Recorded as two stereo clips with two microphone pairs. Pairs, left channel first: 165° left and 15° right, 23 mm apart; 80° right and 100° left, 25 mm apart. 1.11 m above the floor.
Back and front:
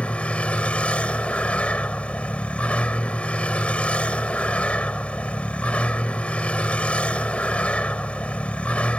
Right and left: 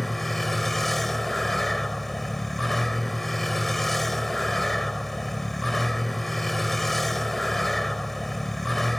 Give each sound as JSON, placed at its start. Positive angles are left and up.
{"t": 0.0, "sound": "a vehicle", "azimuth_deg": -160}